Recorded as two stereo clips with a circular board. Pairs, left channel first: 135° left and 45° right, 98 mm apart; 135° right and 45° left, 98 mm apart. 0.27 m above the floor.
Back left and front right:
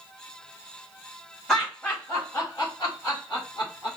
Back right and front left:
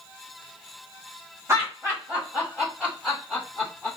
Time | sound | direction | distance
1.5 | laughter | 55° left | 1.3 m